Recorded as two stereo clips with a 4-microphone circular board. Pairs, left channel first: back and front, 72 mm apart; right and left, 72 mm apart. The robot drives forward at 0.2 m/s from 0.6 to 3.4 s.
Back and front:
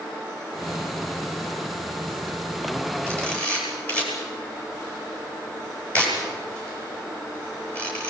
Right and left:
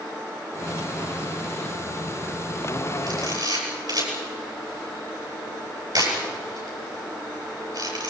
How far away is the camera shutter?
About 10 m.